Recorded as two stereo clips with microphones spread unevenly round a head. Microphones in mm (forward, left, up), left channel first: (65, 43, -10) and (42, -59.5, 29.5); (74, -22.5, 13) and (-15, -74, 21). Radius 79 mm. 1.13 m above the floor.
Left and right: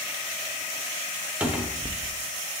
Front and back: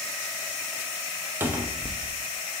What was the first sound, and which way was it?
A cupboard door, 150° left.